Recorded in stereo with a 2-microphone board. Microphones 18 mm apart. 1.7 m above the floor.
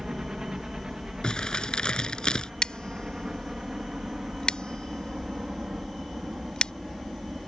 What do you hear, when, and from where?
0.0 s a helicopter: 35° right (ahead or behind); by 7.5 s 45° right (ahead or behind)
1.2 s crumpling: 45° left (ahead or behind)
2.6 s scissors: 55° left (ahead or behind)